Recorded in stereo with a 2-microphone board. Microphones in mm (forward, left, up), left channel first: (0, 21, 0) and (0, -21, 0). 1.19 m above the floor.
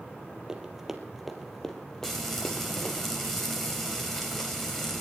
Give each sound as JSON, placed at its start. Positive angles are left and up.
{"t": 0.5, "sound": "running footsteps", "side_deg": -15, "distance_m": 2.0}
{"t": 2.0, "sound": "frying", "side_deg": 5, "distance_m": 3.5}